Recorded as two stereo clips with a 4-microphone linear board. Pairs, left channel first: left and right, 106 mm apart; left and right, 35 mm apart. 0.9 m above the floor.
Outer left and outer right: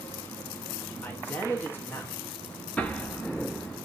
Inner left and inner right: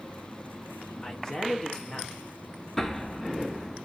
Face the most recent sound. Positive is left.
turn(degrees=15)  # may be behind; listen again after turning